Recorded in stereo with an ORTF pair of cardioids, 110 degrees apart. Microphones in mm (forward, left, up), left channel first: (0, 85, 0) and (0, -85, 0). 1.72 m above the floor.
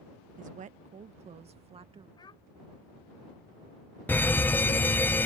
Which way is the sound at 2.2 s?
25° left.